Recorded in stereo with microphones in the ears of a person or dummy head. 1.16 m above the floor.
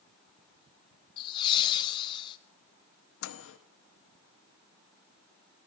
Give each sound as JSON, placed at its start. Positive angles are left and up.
{"t": 1.2, "sound": "laughter", "side_deg": 25, "distance_m": 0.7}
{"t": 3.2, "sound": "a microwave", "side_deg": 70, "distance_m": 0.8}